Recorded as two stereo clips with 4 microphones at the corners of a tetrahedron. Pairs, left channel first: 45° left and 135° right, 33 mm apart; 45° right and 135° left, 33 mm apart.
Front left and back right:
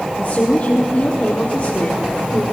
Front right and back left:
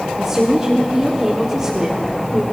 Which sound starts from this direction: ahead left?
A woman speaking, at 0.2 s.